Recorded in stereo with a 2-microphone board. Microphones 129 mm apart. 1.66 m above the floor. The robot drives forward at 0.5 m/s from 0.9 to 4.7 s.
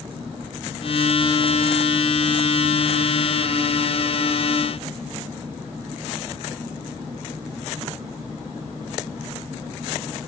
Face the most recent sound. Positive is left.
No sound to turn to.